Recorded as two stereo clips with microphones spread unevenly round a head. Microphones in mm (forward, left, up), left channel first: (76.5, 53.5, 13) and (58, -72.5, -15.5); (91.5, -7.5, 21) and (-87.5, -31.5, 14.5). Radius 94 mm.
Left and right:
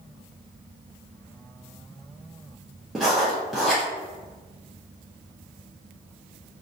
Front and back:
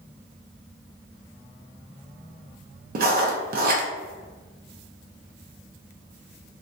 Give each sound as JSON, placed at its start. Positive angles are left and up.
{"t": 3.0, "sound": "writing", "azimuth_deg": -175, "distance_m": 0.5}